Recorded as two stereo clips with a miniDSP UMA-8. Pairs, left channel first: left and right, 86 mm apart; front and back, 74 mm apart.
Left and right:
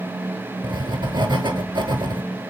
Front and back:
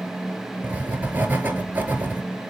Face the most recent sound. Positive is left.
turn(degrees=-115)